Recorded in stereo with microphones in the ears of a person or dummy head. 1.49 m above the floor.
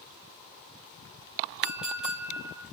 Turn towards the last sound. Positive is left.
turn(degrees=-5)  # may be behind; listen again after turning